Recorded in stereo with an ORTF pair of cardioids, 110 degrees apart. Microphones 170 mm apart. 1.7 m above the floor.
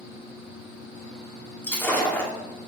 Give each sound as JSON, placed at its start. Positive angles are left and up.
{"t": 1.6, "sound": "breaking glass", "azimuth_deg": 15, "distance_m": 2.5}